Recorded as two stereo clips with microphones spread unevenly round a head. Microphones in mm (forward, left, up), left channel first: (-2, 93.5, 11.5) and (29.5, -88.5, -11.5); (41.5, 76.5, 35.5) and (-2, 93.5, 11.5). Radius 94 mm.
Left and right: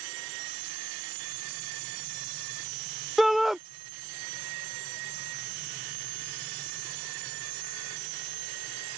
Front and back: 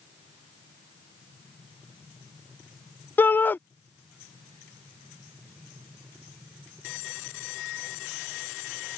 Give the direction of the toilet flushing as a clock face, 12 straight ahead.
No toilet flushing in this recording.